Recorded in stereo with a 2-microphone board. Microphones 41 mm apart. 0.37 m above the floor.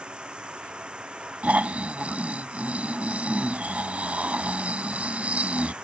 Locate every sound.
0.0 s running water: 25° right (ahead or behind)
1.4 s snoring: 35° right (ahead or behind)